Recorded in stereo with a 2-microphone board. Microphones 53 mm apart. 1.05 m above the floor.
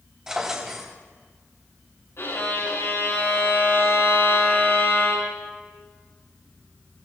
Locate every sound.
0.3 s a drawer: 10° right (ahead or behind), 3.5 m
2.2 s a violin: 55° left (ahead or behind), 5.5 m